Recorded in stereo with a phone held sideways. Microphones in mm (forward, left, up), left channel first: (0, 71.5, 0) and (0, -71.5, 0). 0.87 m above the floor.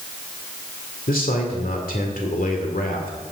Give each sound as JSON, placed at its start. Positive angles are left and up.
{"t": 1.1, "sound": "a man speaking", "side_deg": 80, "distance_m": 2.0}